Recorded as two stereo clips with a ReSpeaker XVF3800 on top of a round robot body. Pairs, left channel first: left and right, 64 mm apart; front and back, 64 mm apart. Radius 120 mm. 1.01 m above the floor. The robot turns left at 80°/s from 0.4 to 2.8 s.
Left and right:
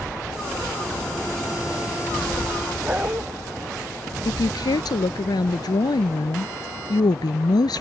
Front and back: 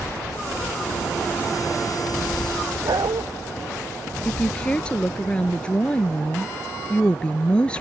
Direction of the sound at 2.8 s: 160° right.